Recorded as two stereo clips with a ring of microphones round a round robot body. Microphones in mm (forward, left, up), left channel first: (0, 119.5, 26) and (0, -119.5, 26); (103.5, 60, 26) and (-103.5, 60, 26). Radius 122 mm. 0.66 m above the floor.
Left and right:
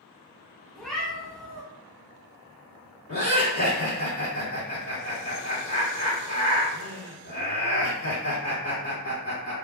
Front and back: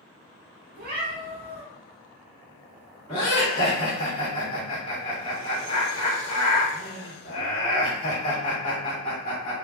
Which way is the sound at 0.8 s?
175° left.